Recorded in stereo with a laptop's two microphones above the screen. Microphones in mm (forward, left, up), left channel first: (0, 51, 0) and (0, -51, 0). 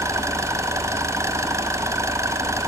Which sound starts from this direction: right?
An engine running, at 0.0 s.